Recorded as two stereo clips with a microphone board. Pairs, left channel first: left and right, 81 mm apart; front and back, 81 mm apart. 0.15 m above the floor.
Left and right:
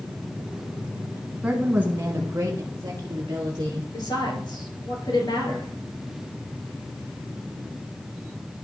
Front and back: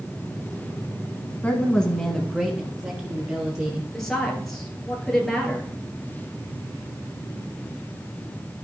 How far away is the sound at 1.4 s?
About 1.1 m.